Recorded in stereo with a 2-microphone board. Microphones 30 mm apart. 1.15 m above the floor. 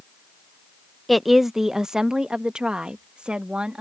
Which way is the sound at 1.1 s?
Centre (ahead or behind).